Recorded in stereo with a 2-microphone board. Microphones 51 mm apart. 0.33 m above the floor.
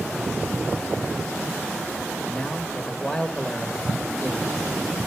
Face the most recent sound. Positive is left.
turn(degrees=15)  # may be behind; listen again after turning